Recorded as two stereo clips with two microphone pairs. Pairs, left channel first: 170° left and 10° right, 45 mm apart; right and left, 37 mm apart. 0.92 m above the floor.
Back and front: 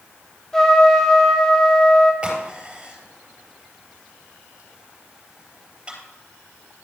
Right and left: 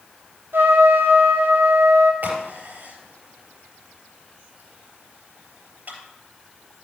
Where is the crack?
60° left, 3.5 m.